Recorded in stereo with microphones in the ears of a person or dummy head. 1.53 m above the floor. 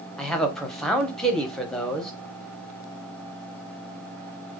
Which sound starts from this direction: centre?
A man speaking, at 0.2 s.